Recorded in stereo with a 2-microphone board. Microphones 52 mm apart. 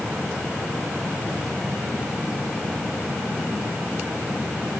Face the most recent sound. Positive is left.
No sound to turn to.